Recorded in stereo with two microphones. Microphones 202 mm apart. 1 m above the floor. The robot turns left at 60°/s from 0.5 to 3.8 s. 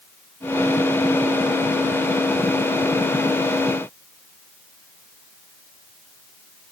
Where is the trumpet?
I don't hear a trumpet.